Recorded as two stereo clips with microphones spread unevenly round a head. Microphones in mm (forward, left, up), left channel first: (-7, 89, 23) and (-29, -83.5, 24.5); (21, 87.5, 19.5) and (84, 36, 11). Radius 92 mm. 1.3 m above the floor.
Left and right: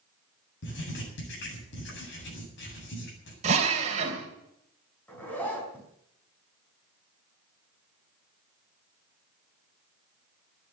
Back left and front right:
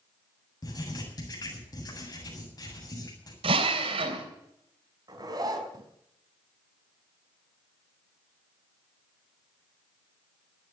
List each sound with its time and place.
0.6 s writing: 105° left, 8 m
3.4 s a drill: 40° right, 3 m
5.1 s a zipper: straight ahead, 4 m